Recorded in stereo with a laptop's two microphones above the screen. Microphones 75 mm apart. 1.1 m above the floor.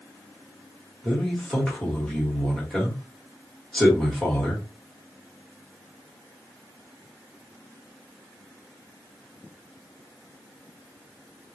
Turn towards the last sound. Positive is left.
turn(degrees=5)  # may be behind; listen again after turning